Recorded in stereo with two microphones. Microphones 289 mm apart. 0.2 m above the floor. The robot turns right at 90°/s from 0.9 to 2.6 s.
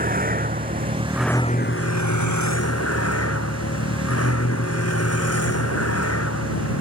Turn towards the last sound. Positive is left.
turn(degrees=125)